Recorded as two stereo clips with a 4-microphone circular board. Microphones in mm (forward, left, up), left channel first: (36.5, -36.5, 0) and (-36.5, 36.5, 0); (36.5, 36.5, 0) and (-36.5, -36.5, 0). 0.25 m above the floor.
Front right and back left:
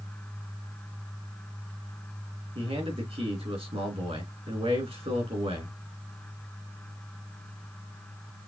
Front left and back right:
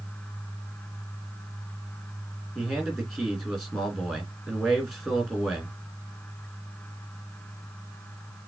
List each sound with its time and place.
2.5 s a man speaking: 135° left, 3.5 m